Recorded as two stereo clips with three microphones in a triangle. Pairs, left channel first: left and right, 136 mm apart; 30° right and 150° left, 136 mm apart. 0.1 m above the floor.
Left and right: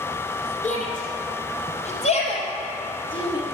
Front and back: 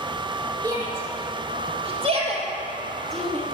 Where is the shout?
100° left, 4 m; by 3.4 s 135° left, 3 m.